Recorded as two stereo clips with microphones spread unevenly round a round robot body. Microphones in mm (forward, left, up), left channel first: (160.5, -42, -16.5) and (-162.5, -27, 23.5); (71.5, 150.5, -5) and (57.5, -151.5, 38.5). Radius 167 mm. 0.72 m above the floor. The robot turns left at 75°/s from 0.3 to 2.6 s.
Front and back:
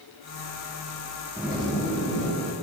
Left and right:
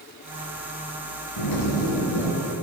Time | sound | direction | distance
1.4 | a zipper | 95° left | 4.5 m